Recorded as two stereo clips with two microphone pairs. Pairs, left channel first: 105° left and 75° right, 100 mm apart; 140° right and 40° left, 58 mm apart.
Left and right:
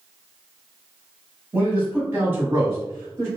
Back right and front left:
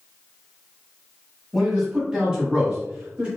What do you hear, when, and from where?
1.5 s a man speaking: 40° right, 1.3 m; by 3.3 s 20° right, 1.9 m